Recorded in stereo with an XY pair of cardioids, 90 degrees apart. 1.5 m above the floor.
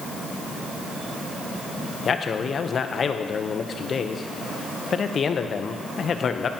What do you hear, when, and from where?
2.0 s a man speaking: 50° left, 0.9 m